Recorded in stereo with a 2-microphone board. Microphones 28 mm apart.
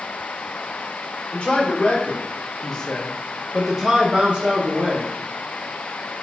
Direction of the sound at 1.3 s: 45° left (ahead or behind).